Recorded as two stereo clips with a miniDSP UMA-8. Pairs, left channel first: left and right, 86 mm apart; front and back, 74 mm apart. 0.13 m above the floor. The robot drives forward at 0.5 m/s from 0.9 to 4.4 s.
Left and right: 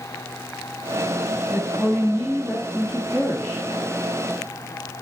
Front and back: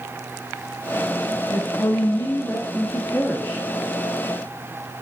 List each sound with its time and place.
1.5 s a woman speaking: 15° right, 1.7 m; by 3.7 s 55° right, 1.0 m